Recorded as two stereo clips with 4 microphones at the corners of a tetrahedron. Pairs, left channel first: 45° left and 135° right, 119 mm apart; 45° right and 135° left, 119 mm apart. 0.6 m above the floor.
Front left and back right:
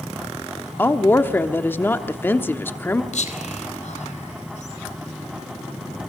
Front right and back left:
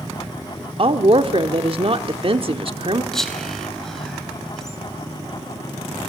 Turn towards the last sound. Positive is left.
turn(degrees=40)